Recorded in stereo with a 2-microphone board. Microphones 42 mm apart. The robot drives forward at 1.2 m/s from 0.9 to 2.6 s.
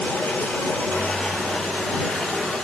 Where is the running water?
35° left (ahead or behind), 6.5 m; by 2.6 s 25° left (ahead or behind), 8.5 m.